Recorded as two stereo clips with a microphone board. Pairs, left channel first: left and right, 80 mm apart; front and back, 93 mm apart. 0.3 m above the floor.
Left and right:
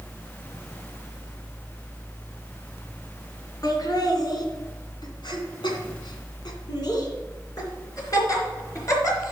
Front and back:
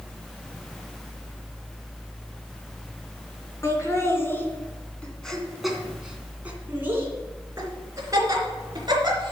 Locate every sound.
3.6 s laughter: 55° left, 2.5 m; by 9.3 s 140° left, 3.5 m